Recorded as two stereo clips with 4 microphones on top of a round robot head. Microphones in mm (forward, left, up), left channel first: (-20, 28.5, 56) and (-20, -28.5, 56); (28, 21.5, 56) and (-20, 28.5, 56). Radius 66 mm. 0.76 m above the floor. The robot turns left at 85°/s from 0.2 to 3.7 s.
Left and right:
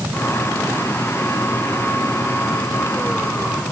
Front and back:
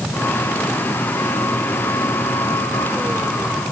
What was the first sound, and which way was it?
Only background noise.